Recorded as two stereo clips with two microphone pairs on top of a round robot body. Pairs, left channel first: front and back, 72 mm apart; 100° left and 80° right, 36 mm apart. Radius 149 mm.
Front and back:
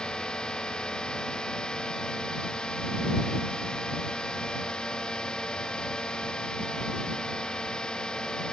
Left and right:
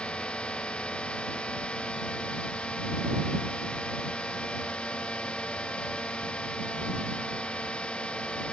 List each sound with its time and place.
0.0 s a drone: 75° left